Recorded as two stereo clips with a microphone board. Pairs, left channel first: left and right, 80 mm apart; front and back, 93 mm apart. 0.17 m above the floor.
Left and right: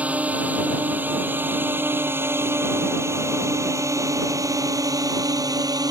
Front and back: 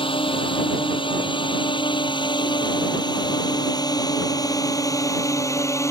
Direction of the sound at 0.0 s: 20° right.